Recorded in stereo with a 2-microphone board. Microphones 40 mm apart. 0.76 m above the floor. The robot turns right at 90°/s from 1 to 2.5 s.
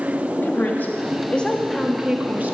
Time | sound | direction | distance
0.4 | a woman speaking | 110° left | 1.2 m